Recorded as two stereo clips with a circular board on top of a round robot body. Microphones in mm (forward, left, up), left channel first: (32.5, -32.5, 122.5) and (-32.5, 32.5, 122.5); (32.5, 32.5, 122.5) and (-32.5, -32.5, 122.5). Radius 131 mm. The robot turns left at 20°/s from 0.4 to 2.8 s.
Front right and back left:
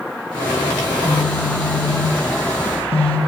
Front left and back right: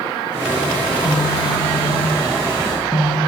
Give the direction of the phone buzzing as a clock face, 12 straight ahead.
12 o'clock.